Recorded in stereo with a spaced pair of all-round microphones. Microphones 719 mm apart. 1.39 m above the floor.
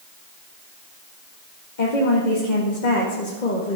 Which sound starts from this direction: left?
A woman speaking, at 1.8 s.